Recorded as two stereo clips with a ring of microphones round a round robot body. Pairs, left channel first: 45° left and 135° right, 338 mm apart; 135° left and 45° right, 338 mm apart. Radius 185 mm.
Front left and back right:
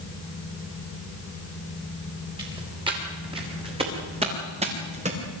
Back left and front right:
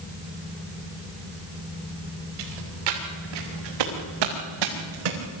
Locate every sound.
2.4 s footsteps: 55° right, 6.5 m; by 5.2 s 65° right, 4.5 m